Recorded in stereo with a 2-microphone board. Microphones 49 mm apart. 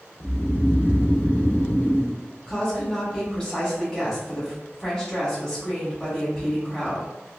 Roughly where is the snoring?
Left.